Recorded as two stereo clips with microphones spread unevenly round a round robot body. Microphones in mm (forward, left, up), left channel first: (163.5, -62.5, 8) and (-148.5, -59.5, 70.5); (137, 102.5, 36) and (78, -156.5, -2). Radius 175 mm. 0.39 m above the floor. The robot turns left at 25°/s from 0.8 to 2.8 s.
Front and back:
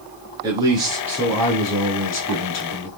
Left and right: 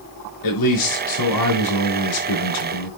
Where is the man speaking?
100° left, 6 m; by 2.9 s 50° left, 6 m.